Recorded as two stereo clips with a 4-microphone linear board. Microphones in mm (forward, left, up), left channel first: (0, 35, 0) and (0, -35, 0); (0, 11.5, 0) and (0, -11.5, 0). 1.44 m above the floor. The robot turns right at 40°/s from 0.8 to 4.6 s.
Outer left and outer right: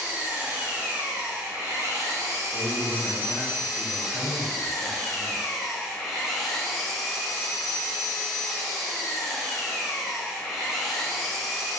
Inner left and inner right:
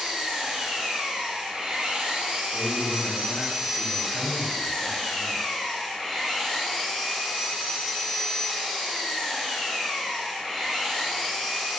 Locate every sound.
0.0 s an engine running: 145° right, 0.9 m; by 11.8 s 5° left, 0.9 m
2.5 s a man speaking: 105° left, 1.1 m; by 5.4 s 175° right, 1.1 m